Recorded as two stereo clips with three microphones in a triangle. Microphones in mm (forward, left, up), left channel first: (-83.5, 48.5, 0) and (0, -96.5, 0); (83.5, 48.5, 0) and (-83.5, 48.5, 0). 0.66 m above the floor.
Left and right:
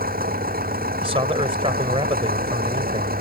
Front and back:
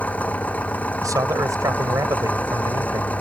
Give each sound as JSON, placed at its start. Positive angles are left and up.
{"t": 0.0, "sound": "an engine running", "azimuth_deg": -80}
{"t": 1.0, "sound": "a man speaking", "azimuth_deg": -115}